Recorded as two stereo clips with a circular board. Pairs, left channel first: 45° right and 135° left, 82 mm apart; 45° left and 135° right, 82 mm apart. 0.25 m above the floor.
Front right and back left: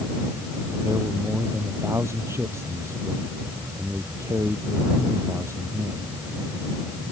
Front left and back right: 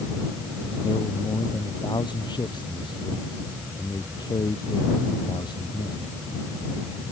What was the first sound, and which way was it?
A man speaking, 80° left.